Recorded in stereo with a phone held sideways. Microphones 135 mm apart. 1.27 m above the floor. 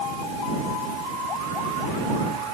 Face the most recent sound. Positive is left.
No sound to turn to.